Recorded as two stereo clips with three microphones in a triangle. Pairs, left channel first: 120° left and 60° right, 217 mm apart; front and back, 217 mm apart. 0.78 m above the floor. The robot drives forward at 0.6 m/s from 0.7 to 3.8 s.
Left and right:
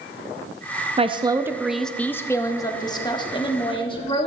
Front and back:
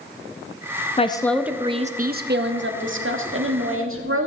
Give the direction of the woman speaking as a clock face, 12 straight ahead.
1 o'clock.